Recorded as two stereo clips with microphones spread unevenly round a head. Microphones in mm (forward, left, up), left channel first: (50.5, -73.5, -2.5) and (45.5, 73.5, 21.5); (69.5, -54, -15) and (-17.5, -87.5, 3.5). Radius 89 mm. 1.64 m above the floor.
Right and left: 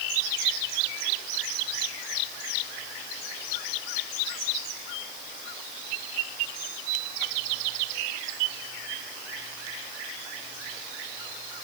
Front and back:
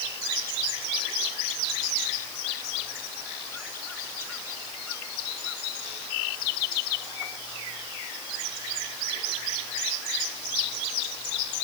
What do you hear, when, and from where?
Only background noise.